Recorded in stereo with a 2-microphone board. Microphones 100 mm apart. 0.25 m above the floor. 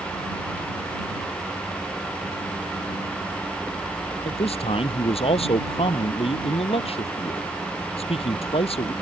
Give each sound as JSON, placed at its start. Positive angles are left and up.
{"t": 4.2, "sound": "a man speaking", "side_deg": 80}